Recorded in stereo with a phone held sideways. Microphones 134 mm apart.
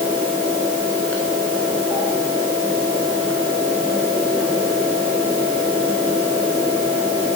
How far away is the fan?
About 8.5 m.